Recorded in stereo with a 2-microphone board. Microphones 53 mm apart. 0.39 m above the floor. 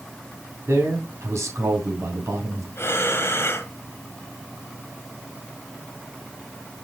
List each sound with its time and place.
0.7 s a man speaking: 70° right (ahead or behind), 3 m
2.8 s breathing: 55° left (ahead or behind), 1.3 m